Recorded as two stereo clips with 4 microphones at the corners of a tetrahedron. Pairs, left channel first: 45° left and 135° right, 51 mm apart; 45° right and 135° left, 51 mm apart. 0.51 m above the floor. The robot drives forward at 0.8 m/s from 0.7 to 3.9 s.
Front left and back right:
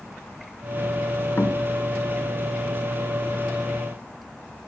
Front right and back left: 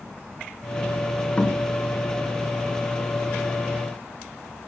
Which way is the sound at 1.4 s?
15° left.